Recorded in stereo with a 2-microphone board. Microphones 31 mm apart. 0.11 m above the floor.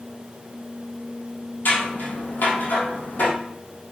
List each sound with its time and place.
1.6 s scissors: 70° left (ahead or behind), 3.5 m